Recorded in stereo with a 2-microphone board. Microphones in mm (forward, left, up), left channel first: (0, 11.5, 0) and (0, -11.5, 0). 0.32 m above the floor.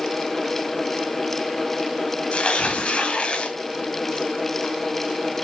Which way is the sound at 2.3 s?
60° left (ahead or behind).